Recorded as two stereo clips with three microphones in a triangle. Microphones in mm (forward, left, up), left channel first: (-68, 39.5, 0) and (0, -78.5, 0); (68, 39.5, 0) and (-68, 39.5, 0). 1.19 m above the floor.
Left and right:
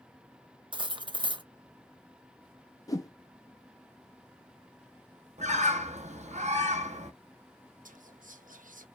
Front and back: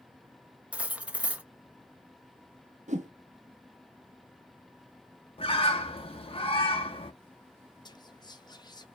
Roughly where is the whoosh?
Behind.